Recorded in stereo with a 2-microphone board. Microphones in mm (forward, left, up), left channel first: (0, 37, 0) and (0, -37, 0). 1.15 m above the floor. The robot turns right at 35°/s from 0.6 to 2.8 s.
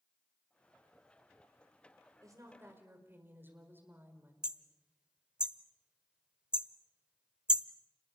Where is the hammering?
10° right (ahead or behind), 0.9 m.